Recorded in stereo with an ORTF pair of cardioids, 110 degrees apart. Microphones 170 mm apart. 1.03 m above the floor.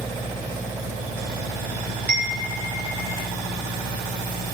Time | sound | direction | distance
2.1 | a chime | 60° right | 1.7 m